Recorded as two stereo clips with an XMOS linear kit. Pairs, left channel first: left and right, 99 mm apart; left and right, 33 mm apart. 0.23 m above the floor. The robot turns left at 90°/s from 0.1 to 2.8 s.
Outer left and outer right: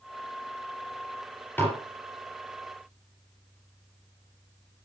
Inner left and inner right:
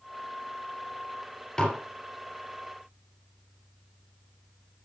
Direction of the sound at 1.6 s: 20° left (ahead or behind).